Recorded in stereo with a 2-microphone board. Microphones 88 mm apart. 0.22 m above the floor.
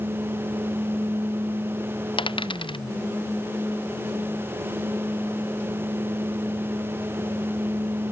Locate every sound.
2.2 s a dropped coin: 75° left (ahead or behind)